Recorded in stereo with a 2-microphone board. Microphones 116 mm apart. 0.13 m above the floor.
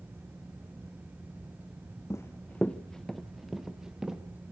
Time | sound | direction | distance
2.1 | running footsteps | 25° left (ahead or behind) | 0.5 m